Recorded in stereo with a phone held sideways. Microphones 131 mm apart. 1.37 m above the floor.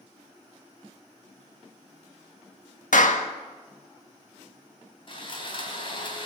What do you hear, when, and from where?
2.9 s a clap: 75° left (ahead or behind), 1.7 m
5.1 s sawing: 40° left (ahead or behind), 3.5 m